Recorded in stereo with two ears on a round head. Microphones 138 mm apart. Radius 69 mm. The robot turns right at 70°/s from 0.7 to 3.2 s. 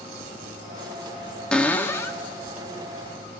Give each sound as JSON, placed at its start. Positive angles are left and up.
{"t": 1.5, "sound": "a cupboard door", "side_deg": 5, "distance_m": 0.8}